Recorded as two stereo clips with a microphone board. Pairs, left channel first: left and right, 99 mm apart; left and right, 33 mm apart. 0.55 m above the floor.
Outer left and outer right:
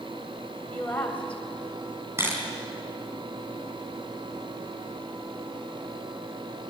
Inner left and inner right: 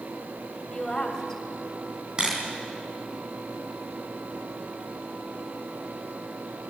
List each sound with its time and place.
0.7 s a woman speaking: 15° left (ahead or behind), 3.5 m
2.2 s a camera shutter: 25° right (ahead or behind), 4 m